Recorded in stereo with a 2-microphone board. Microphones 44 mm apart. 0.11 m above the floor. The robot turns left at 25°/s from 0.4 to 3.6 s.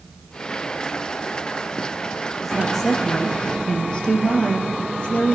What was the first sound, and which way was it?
A woman speaking, centre (ahead or behind).